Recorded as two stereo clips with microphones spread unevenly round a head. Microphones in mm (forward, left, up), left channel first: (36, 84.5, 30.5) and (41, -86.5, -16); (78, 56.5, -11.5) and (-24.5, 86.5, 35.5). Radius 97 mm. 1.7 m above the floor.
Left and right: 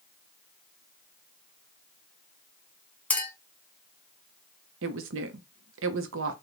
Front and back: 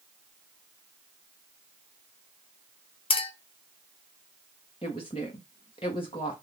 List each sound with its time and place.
3.1 s a clink: 30° left, 0.9 m
4.8 s a woman speaking: 85° right, 0.7 m